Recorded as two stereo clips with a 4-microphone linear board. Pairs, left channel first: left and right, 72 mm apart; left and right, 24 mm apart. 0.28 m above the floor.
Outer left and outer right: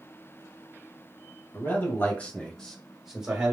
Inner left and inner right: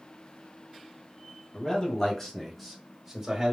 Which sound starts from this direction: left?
A man speaking, at 1.5 s.